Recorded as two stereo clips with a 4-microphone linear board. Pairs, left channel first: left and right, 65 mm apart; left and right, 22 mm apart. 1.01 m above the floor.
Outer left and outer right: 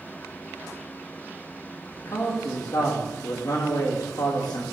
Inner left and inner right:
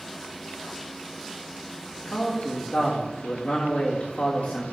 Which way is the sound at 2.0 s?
65° left (ahead or behind).